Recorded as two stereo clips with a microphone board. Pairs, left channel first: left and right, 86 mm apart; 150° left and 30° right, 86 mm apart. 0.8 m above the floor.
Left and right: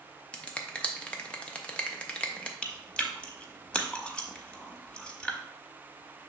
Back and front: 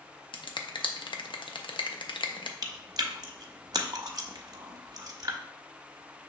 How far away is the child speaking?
No child speaking in this recording.